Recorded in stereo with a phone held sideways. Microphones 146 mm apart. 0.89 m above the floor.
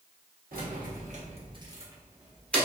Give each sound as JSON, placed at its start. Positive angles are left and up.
{"t": 0.5, "sound": "keys jangling", "side_deg": -80, "distance_m": 0.9}